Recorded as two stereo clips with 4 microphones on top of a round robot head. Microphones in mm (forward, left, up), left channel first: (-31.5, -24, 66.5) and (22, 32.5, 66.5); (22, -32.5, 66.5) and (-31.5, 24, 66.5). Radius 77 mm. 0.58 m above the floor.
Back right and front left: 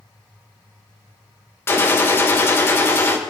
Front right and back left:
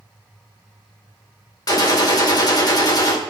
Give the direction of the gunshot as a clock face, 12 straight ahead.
3 o'clock.